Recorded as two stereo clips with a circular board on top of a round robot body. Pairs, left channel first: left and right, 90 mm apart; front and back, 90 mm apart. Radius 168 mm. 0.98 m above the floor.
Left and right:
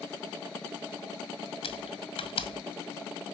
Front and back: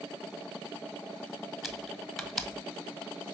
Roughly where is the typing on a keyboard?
Left.